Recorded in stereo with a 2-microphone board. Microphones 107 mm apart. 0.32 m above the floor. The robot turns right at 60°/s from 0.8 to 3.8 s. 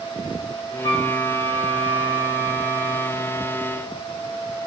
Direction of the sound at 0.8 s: 55° left.